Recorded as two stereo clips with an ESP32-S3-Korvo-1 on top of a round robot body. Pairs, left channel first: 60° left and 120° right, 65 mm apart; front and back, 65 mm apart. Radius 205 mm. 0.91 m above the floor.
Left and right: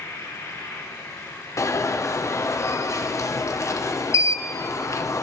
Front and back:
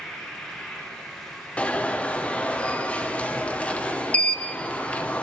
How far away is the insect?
About 4.5 m.